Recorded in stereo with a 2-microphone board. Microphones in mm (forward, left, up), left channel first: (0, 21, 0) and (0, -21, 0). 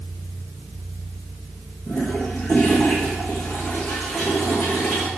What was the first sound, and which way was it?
A toilet flushing, 20° left (ahead or behind).